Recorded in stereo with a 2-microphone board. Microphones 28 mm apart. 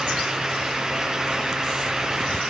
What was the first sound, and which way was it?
Only background noise.